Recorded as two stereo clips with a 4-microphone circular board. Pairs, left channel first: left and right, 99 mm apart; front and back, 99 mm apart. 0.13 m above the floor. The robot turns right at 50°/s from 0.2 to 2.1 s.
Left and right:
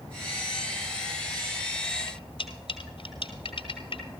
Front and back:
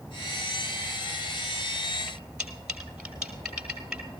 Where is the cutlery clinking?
100° left, 1.8 m.